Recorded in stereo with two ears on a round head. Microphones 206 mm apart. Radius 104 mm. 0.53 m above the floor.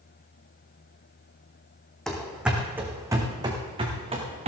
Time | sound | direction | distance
2.1 | running footsteps | centre (ahead or behind) | 2 m